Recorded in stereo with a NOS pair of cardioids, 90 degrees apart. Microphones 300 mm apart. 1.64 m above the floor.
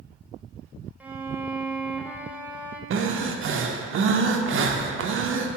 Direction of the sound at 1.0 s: 5° right.